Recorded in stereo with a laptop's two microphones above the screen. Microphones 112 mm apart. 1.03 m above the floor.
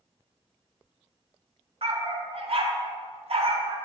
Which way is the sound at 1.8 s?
60° right (ahead or behind).